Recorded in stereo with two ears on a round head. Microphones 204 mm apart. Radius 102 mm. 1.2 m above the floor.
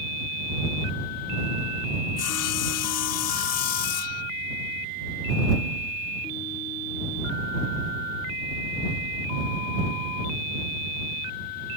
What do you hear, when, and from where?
2.2 s sawing: 80° left